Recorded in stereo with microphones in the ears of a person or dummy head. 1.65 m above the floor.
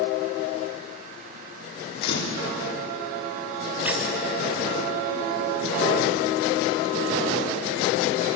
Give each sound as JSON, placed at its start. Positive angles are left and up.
{"t": 2.0, "sound": "a camera shutter", "side_deg": 75, "distance_m": 4.5}
{"t": 3.9, "sound": "a squeak", "side_deg": -5, "distance_m": 3.0}